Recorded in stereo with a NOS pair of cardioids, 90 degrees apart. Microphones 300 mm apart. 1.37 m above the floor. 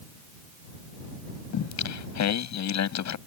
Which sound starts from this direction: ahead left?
Singing, at 1.5 s.